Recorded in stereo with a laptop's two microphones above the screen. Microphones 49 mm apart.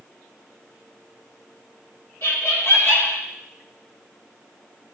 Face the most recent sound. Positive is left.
turn(degrees=55)  # may be behind; listen again after turning